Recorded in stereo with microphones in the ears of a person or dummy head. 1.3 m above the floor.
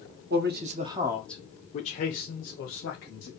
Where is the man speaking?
45° right (ahead or behind), 0.7 m; by 3.3 s 60° left (ahead or behind), 1.5 m.